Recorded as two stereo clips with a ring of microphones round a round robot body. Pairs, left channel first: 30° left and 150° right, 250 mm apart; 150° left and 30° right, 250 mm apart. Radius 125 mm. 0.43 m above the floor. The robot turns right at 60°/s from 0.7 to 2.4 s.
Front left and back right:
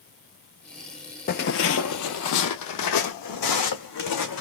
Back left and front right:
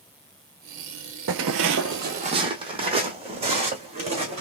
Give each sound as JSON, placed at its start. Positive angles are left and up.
{"t": 1.3, "sound": "footsteps", "azimuth_deg": -15, "distance_m": 0.5}